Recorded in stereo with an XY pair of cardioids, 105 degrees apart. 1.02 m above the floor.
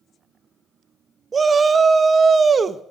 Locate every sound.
1.3 s a shout: 35° right, 0.7 m